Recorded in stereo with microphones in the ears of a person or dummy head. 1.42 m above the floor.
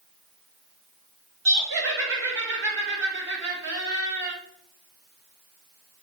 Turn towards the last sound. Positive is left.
turn(degrees=-65)  # may be behind; listen again after turning